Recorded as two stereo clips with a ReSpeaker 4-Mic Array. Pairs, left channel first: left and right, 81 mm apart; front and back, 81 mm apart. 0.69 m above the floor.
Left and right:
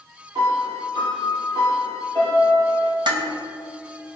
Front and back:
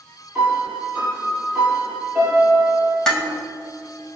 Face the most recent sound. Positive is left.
turn(degrees=-80)